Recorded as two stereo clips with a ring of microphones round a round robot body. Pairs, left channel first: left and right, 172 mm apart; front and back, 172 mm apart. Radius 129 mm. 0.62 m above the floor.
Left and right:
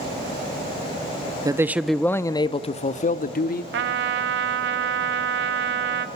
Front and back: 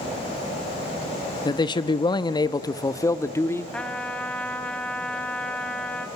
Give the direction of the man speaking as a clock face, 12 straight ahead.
1 o'clock.